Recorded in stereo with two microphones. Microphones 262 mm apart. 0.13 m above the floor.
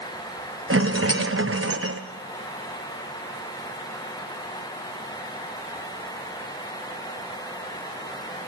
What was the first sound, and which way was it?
A rattle, 55° right (ahead or behind).